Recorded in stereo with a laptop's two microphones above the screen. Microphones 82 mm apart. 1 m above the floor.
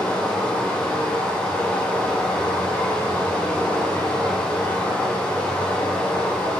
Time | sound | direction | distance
0.0 | running water | 15° left (ahead or behind) | 1.0 m